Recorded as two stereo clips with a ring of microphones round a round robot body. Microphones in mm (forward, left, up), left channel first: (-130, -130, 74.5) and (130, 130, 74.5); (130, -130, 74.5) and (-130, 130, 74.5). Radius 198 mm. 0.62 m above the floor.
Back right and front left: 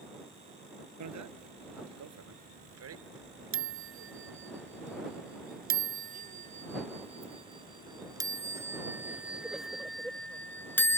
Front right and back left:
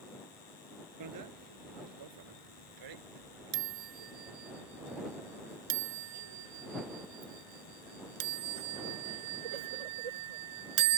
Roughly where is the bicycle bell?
Left.